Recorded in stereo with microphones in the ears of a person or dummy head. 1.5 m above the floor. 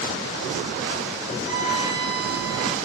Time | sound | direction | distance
1.4 | a violin | 20° right (ahead or behind) | 5 m